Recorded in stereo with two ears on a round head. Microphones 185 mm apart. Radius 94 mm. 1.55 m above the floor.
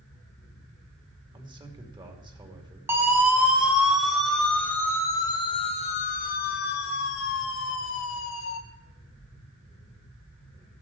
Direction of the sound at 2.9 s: 10° right (ahead or behind).